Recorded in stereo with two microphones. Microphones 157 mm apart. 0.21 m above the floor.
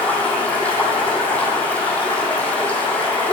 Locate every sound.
0.0 s running water: 10° left (ahead or behind), 1.4 m